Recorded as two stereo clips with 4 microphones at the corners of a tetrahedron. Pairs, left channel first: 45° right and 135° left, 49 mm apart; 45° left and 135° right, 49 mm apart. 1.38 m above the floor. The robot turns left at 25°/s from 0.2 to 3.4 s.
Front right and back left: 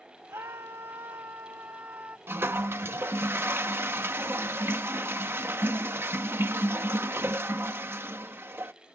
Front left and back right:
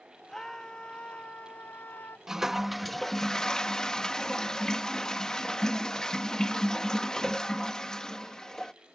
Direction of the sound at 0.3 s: 130° left.